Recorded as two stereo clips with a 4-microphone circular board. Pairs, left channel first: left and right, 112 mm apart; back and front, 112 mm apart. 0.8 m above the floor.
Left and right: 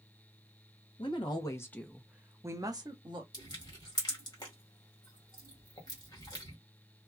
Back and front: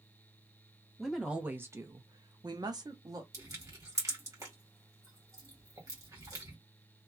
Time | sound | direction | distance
1.0 | a woman speaking | 90° left | 0.7 m
3.3 | crushing | 50° left | 1.5 m